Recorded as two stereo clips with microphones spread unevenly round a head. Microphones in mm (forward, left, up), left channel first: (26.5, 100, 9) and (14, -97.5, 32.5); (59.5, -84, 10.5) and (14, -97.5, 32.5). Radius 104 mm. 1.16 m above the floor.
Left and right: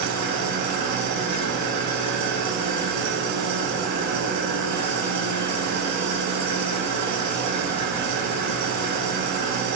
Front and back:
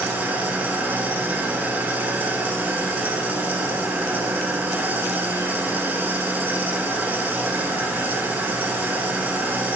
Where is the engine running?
105° right, 8.5 m.